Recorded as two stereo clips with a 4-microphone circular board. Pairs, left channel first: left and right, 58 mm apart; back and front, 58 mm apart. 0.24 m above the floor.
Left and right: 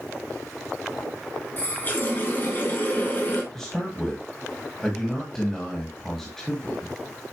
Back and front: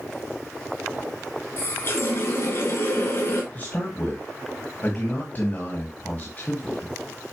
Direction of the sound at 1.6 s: 140° left.